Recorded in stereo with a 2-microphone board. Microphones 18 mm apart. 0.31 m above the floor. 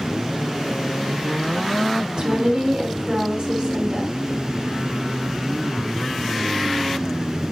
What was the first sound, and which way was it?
A woman speaking, 55° right (ahead or behind).